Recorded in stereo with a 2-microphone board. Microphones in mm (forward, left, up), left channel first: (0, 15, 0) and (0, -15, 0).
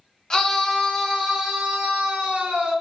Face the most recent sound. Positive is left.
turn(degrees=-40)  # may be behind; listen again after turning